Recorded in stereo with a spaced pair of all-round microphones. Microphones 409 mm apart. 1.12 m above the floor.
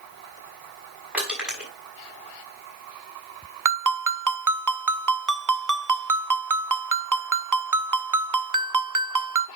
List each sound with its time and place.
1.1 s crushing: 5° right (ahead or behind), 6 m
3.6 s a ringtone: 50° right (ahead or behind), 0.8 m